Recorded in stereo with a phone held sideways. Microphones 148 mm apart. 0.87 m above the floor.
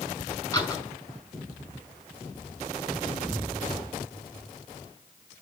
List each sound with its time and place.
0.5 s a door slam: 20° left (ahead or behind), 6 m